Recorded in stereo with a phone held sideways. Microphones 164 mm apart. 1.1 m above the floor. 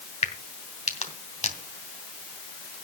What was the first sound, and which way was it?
A crack, 40° left (ahead or behind).